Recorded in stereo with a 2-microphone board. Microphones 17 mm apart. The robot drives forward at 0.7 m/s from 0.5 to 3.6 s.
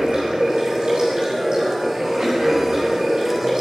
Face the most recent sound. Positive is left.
turn(degrees=-40)  # may be behind; listen again after turning